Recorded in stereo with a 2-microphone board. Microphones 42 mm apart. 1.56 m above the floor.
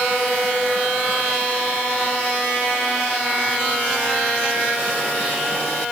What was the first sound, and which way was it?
Only background noise.